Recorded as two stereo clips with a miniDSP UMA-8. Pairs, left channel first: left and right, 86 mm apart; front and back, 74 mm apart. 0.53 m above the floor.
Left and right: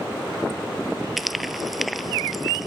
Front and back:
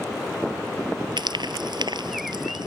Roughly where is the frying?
Behind.